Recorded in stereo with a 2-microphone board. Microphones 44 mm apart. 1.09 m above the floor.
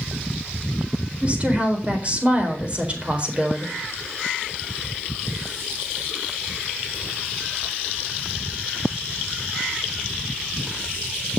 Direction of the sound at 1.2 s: 30° right (ahead or behind).